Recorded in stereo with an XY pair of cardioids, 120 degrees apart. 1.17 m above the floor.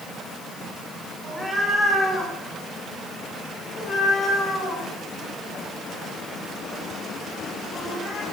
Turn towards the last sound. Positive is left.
turn(degrees=75)